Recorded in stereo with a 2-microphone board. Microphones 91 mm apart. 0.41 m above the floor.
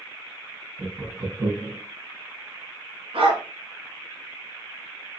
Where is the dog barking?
85° right, 1.3 m.